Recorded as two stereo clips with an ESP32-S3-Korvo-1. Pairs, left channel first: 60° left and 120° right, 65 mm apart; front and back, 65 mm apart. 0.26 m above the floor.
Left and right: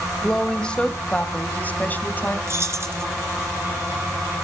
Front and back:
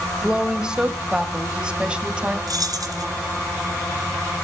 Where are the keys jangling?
165° right, 2.5 m.